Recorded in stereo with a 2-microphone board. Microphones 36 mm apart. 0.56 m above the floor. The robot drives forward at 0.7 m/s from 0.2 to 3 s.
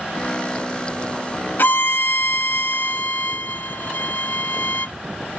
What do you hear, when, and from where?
1.6 s a violin: 65° left (ahead or behind)